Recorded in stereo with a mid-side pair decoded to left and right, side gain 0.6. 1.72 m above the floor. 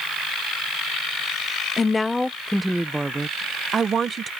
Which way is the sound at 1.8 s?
25° left.